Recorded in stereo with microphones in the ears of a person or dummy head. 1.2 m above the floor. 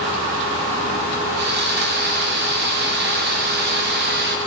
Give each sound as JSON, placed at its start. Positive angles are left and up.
{"t": 1.4, "sound": "sawing", "side_deg": -50, "distance_m": 0.5}